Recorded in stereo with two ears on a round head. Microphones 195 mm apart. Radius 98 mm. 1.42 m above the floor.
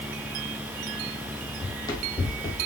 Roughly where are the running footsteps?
Centre.